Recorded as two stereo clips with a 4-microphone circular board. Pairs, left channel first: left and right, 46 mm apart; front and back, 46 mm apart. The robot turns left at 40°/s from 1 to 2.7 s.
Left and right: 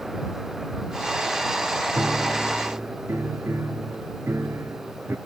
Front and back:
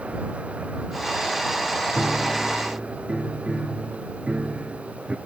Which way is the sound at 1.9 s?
85° right.